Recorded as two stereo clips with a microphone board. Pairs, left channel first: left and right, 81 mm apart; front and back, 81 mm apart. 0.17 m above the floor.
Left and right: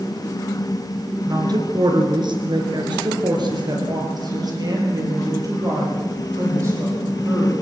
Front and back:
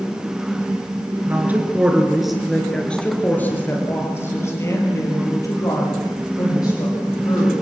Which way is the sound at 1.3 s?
120° right.